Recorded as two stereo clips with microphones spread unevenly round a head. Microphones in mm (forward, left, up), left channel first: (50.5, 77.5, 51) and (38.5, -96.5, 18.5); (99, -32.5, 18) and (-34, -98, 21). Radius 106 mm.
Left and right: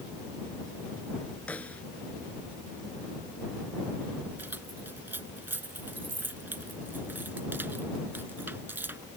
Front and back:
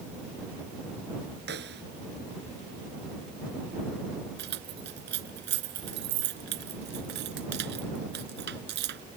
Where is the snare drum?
170° left.